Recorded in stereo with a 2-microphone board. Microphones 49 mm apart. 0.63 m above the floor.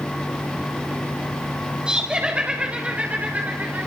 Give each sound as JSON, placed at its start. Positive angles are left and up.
{"t": 1.9, "sound": "laughter", "side_deg": -20, "distance_m": 2.5}